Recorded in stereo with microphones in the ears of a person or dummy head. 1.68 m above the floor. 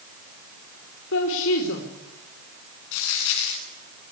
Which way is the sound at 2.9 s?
75° left (ahead or behind).